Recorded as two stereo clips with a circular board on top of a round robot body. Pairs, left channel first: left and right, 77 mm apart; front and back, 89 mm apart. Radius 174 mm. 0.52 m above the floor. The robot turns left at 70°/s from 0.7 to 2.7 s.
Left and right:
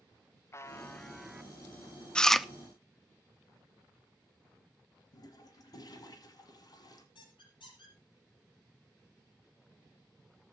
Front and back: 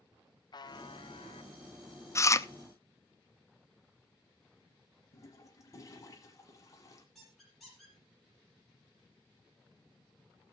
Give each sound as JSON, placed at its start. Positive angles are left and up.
{"t": 0.5, "sound": "a buzzer", "azimuth_deg": 35, "distance_m": 0.7}
{"t": 2.1, "sound": "chewing", "azimuth_deg": 20, "distance_m": 0.8}
{"t": 5.1, "sound": "a toilet flushing", "azimuth_deg": 55, "distance_m": 1.1}
{"t": 7.2, "sound": "a squeak", "azimuth_deg": 90, "distance_m": 5.5}